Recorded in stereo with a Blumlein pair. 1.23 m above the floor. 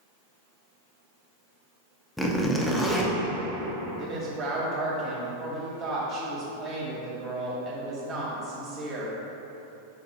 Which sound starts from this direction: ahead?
A zipper, at 2.2 s.